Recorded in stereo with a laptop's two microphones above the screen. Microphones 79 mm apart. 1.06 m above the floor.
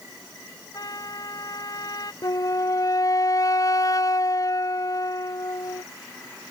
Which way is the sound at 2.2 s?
50° left (ahead or behind).